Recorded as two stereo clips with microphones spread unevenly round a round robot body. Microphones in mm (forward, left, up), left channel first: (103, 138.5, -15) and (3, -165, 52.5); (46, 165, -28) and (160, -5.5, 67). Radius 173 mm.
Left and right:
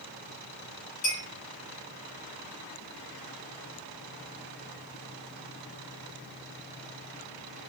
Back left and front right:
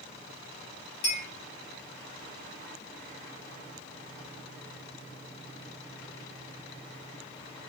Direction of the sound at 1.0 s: 135° left.